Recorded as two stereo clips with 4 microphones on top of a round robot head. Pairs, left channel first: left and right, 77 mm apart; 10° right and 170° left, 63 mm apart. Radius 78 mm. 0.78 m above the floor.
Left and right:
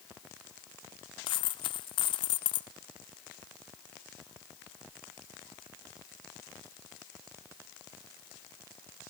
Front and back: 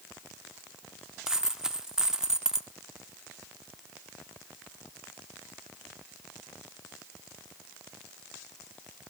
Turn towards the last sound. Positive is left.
turn(degrees=90)